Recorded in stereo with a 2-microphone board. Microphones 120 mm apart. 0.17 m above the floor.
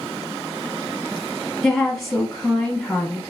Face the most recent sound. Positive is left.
turn(degrees=5)  # may be behind; listen again after turning